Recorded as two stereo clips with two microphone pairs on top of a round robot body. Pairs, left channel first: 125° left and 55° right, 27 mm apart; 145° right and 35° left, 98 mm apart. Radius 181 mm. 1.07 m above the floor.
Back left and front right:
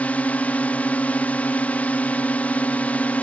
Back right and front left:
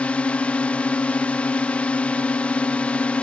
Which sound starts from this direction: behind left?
A drone, at 0.0 s.